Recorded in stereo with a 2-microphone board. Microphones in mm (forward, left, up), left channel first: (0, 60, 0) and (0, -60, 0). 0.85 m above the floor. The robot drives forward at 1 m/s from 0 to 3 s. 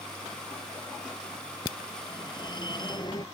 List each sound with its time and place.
1.6 s a phone ringing: 40° left (ahead or behind)